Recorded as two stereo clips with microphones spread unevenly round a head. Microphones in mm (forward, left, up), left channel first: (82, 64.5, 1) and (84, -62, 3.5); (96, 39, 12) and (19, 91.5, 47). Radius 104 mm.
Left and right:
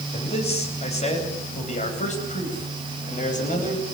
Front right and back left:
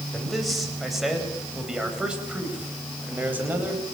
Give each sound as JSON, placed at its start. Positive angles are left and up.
{"t": 0.1, "sound": "a man speaking", "azimuth_deg": 55, "distance_m": 9.5}